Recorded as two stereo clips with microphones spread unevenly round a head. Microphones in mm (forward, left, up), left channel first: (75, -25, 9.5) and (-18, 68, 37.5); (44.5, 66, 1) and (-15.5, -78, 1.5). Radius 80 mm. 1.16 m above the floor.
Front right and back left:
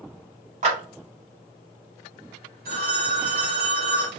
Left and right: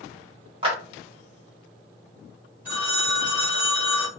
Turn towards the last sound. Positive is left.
turn(degrees=165)